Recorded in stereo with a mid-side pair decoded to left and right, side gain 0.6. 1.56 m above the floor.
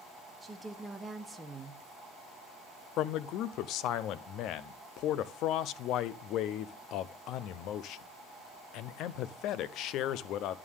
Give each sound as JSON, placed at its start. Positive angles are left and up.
{"t": 0.4, "sound": "a woman speaking", "azimuth_deg": -15, "distance_m": 1.2}
{"t": 3.0, "sound": "a man speaking", "azimuth_deg": 65, "distance_m": 0.6}